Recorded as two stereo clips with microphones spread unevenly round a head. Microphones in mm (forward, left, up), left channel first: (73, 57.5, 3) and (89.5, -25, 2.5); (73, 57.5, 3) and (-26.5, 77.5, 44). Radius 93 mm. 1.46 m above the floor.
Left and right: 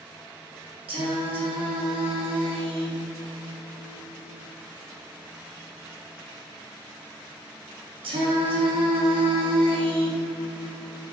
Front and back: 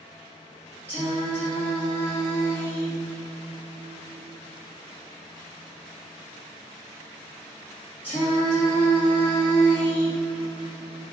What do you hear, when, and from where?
0.9 s singing: 80° right, 0.8 m